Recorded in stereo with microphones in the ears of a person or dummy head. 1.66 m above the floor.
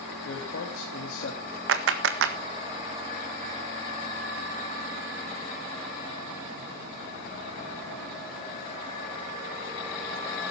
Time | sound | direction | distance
0.2 | a man speaking | 85° left | 3.5 m
1.7 | a clap | 70° right (ahead or behind) | 1.5 m